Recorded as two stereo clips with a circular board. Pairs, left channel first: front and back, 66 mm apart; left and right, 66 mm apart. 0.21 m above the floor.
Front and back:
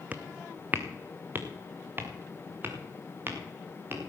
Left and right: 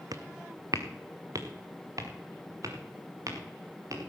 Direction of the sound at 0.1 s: 115° right.